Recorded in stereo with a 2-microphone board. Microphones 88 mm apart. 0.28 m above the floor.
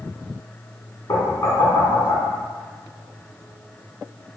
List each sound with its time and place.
1.1 s knocking: 45° left (ahead or behind), 1.6 m